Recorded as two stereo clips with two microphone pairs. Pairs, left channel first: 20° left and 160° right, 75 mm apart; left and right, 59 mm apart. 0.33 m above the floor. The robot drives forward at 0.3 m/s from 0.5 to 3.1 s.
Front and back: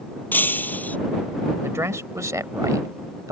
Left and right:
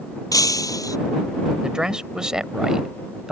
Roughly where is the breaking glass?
Left.